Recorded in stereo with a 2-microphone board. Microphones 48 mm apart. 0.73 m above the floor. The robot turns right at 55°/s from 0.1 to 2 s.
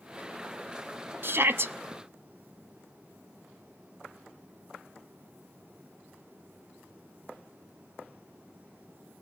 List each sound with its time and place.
1.2 s a shout: 50° right (ahead or behind), 0.7 m